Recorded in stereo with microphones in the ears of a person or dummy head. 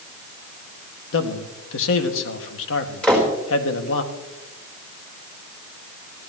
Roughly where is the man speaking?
Left.